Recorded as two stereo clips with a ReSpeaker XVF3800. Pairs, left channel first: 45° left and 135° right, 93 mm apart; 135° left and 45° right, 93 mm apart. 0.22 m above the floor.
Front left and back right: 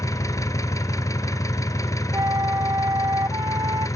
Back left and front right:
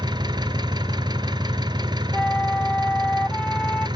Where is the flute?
155° right, 0.6 m.